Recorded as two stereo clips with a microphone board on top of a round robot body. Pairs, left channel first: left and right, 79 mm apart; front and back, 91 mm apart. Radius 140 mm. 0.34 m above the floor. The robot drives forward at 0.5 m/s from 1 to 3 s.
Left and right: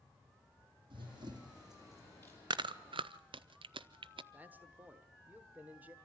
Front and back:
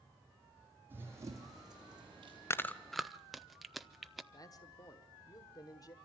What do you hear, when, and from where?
0.9 s running footsteps: 110° right, 1.3 m; by 2.4 s 145° right, 2.5 m
2.5 s chewing: 60° right, 0.5 m; by 4.2 s 90° right, 0.5 m
4.3 s a man speaking: 25° right, 1.5 m